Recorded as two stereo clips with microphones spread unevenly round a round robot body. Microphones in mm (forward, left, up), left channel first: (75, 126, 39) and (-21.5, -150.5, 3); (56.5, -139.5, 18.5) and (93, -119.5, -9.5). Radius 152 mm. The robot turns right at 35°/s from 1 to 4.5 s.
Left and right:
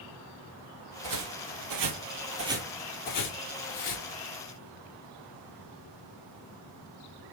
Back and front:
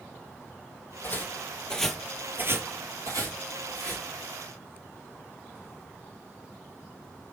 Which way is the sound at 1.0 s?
140° right.